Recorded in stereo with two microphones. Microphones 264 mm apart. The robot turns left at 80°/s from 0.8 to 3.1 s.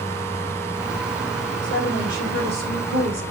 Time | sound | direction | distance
1.6 | a woman speaking | 15° left | 2.5 m